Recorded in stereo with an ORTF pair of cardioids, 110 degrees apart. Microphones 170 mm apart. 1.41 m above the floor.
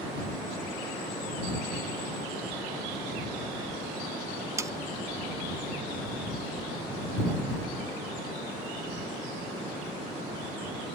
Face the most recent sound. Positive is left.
turn(degrees=-20)